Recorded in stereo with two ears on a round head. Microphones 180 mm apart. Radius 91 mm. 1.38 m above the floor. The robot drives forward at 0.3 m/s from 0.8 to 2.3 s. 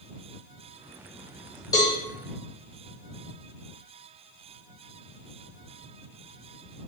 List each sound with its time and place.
1.7 s a cowbell: 20° left (ahead or behind), 0.7 m